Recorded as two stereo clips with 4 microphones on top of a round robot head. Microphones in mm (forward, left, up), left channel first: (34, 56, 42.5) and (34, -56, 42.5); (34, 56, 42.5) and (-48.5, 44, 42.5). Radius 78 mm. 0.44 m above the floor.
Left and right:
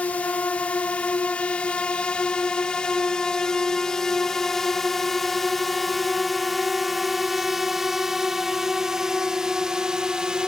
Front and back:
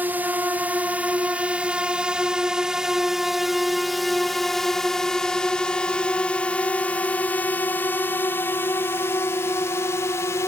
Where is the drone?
150° left; by 10.5 s 10° right.